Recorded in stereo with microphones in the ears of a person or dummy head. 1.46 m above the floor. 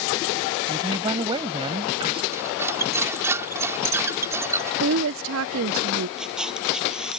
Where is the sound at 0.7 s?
25° right (ahead or behind).